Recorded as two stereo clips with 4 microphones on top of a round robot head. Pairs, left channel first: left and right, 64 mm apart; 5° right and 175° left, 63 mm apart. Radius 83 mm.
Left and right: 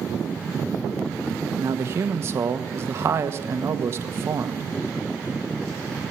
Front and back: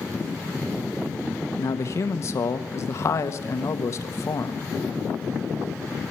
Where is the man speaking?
40° right, 1.1 m.